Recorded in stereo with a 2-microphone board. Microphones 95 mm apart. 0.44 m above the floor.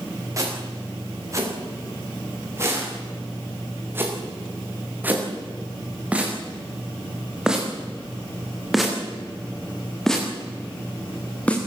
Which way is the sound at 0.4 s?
35° right (ahead or behind).